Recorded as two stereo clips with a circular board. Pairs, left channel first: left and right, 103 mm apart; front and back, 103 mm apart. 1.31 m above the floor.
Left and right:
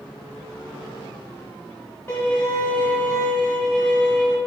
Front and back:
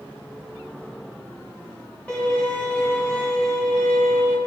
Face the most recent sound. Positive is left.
turn(degrees=55)